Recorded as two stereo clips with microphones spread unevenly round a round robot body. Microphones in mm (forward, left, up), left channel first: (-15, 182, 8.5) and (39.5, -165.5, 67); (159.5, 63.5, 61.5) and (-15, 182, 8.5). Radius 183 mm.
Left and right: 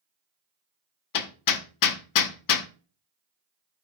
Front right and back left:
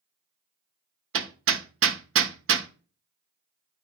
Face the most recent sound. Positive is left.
turn(degrees=135)